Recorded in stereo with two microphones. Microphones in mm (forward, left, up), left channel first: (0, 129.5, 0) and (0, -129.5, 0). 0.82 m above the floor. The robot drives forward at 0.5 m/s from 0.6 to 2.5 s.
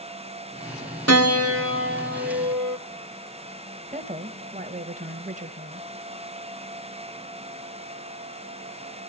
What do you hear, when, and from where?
1.1 s a piano: 70° right (ahead or behind), 0.8 m; by 2.8 s 40° right (ahead or behind), 1.2 m
3.9 s a woman speaking: 30° right (ahead or behind), 0.7 m